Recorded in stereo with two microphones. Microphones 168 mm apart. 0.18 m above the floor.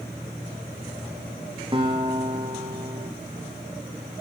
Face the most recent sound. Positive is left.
turn(degrees=-30)  # may be behind; listen again after turning